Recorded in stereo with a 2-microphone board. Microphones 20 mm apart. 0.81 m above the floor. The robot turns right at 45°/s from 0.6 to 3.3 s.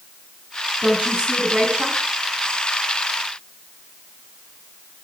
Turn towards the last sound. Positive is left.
turn(degrees=15)